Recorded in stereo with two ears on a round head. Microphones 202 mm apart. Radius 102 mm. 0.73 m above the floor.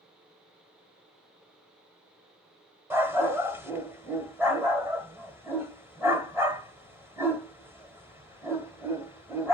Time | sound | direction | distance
2.9 | a dog barking | 10° right (ahead or behind) | 1.3 m